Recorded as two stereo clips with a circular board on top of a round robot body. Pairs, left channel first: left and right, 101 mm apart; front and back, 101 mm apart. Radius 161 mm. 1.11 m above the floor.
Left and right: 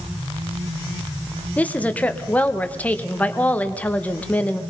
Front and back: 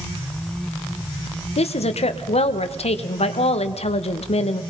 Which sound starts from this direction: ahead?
A woman speaking, at 1.6 s.